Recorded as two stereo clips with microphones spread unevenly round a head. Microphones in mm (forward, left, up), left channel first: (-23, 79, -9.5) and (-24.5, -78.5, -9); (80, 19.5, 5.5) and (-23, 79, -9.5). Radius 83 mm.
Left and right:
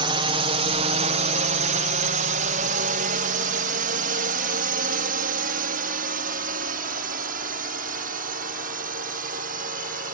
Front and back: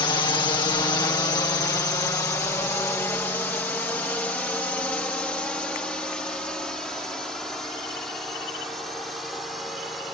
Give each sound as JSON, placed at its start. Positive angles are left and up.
{"t": 0.0, "sound": "a drone", "azimuth_deg": -65}